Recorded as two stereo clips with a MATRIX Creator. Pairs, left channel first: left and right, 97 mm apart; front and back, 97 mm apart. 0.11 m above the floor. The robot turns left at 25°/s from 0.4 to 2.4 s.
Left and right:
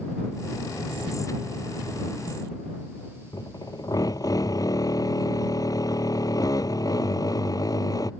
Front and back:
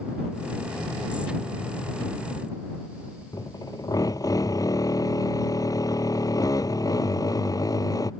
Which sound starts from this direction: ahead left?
A drill, at 3.3 s.